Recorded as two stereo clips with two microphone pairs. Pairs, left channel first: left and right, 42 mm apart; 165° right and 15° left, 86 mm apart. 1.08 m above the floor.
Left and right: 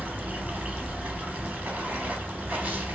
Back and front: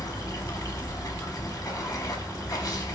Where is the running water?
135° right, 0.9 m.